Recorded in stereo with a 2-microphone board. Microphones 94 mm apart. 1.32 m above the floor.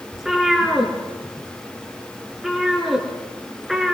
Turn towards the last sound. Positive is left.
turn(degrees=0)  # may be behind; listen again after turning